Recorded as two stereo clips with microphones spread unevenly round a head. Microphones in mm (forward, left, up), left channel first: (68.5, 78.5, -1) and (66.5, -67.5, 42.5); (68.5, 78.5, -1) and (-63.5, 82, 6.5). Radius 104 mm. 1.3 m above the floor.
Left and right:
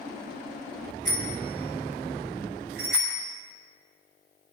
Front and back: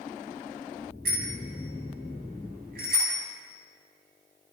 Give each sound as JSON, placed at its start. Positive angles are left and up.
{"t": 1.1, "sound": "a bicycle bell", "azimuth_deg": -145, "distance_m": 7.0}